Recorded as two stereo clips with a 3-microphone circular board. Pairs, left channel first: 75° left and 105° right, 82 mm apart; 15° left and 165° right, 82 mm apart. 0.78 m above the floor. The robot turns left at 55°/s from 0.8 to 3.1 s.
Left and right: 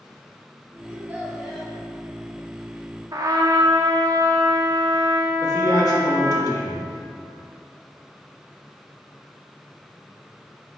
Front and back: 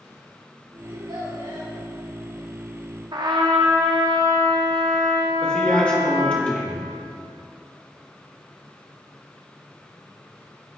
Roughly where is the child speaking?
Behind.